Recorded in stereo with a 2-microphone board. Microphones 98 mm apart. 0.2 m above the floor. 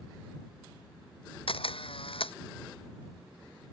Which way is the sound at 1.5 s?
75° left (ahead or behind).